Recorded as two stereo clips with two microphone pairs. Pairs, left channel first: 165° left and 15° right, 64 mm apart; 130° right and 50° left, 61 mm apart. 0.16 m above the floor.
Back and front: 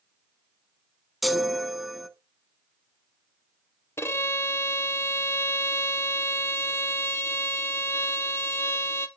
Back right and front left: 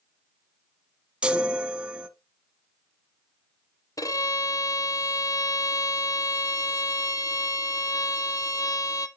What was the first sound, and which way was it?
A chime, 75° left.